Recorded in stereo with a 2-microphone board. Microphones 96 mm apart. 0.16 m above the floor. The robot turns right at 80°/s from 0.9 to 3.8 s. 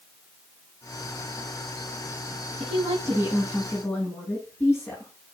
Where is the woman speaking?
75° right, 7.5 m; by 5.1 s 20° left, 7.5 m.